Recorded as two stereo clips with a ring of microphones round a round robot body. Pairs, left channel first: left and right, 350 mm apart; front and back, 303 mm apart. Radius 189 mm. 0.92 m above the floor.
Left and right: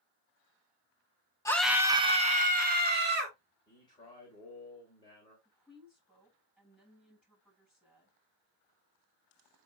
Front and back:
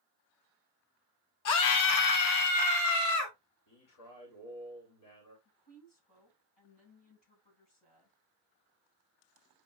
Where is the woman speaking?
5° right, 6 m.